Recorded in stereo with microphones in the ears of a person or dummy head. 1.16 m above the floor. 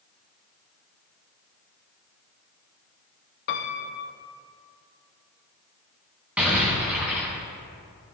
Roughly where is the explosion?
Centre.